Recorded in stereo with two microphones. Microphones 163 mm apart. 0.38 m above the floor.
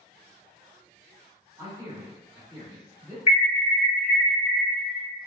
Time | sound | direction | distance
1.6 | a man speaking | 20° right (ahead or behind) | 1.3 m
3.3 | an alarm | 40° left (ahead or behind) | 1.3 m